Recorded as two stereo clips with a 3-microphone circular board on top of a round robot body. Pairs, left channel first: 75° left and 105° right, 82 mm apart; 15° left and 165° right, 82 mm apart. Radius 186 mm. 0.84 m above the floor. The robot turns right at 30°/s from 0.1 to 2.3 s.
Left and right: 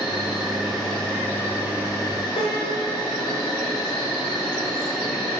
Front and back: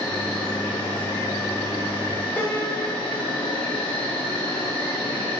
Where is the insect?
30° right, 4 m; by 5.4 s 35° left, 4 m.